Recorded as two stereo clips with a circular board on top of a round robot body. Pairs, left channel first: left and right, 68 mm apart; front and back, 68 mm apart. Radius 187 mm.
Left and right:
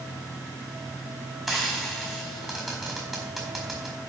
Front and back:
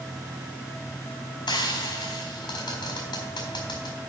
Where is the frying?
5° right, 1.7 m.